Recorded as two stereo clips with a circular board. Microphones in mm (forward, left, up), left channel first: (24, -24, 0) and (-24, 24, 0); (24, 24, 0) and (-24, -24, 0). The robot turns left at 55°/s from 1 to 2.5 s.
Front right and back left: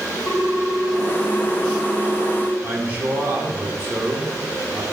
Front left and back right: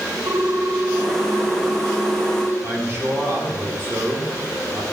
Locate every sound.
0.3 s a ringtone: 95° right, 1.4 m; by 2.5 s straight behind, 1.4 m
2.6 s a man speaking: 170° right, 1.8 m